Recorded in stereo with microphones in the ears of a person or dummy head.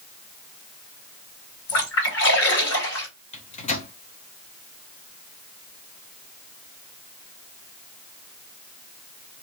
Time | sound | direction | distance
1.7 | a splash | 60° left (ahead or behind) | 1.8 m
3.3 | a microwave | 40° left (ahead or behind) | 0.6 m